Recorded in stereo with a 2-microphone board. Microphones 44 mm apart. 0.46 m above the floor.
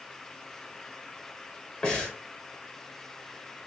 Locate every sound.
1.8 s breathing: 20° left (ahead or behind), 1.2 m